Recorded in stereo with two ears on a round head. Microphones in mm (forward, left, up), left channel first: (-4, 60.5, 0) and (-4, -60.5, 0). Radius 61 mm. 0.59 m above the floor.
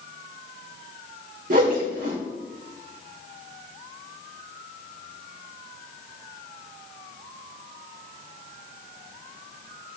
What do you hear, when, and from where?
1.5 s a whoosh: 65° right (ahead or behind), 1.2 m